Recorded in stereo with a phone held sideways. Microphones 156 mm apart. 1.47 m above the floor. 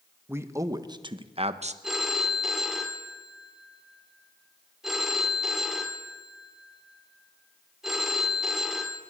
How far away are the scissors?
I don't hear scissors.